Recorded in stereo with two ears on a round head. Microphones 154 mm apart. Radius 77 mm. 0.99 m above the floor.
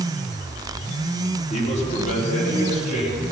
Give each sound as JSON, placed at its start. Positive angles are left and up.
{"t": 1.5, "sound": "a man speaking", "side_deg": 40, "distance_m": 3.0}